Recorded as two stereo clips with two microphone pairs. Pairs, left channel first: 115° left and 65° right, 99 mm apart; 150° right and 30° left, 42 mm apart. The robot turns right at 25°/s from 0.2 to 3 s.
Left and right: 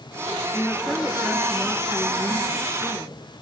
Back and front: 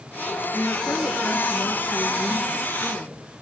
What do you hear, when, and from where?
0.5 s a woman speaking: straight behind, 4 m; by 3.4 s 115° right, 4 m